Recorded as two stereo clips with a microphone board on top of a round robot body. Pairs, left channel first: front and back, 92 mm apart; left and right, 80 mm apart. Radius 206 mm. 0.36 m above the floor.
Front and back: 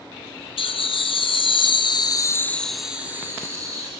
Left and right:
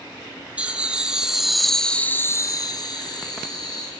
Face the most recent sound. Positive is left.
turn(degrees=130)